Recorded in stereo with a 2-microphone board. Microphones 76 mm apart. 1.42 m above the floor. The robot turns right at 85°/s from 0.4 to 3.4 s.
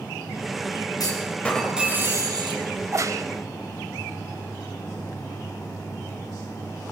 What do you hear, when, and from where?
1.0 s a clunk: 125° left, 5 m; by 2.6 s 100° right, 5 m
2.8 s a crack: 135° right, 1.7 m; by 3.2 s 95° right, 1.7 m